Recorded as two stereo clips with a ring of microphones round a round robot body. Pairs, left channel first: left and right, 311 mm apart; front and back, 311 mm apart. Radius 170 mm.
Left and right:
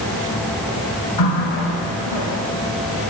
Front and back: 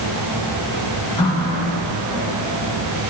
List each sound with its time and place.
1.2 s a running tap: 75° left, 4 m